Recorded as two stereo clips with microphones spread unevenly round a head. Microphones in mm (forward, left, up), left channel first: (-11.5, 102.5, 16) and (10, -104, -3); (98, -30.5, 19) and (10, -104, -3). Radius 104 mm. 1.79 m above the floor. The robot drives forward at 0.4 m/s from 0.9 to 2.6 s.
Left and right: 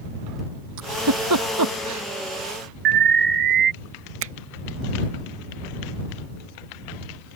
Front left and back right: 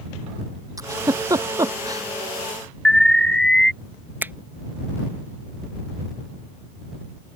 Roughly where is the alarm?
Ahead right.